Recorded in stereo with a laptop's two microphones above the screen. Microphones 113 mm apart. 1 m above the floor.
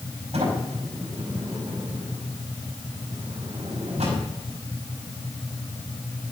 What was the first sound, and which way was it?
A sliding door, 75° right (ahead or behind).